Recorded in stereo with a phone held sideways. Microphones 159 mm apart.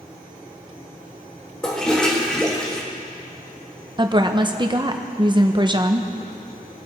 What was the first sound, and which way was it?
A toilet flushing, 5° left (ahead or behind).